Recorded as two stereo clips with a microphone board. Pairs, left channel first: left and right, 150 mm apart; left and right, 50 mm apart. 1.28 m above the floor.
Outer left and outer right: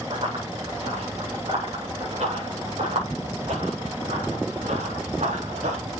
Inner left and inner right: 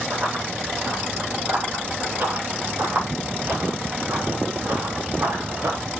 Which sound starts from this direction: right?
Running footsteps, at 0.1 s.